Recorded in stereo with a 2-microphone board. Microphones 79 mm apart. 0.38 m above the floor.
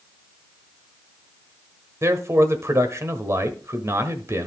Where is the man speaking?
40° right (ahead or behind), 1.2 m.